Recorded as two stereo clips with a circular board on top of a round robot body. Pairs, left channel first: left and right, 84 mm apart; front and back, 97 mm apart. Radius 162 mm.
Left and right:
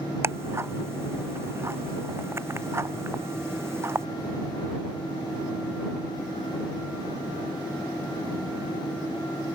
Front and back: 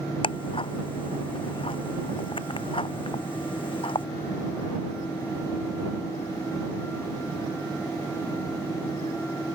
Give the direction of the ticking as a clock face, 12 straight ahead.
1 o'clock.